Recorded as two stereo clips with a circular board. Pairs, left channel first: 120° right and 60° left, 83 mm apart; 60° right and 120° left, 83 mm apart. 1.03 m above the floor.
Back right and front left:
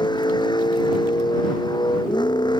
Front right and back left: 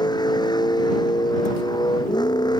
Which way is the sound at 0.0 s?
95° right.